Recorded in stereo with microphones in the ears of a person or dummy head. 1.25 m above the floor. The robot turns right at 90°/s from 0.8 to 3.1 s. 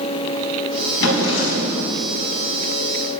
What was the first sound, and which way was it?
A drawer, 60° left.